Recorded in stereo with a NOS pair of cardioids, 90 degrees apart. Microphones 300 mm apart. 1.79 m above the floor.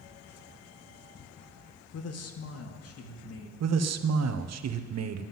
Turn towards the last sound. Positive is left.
turn(degrees=-60)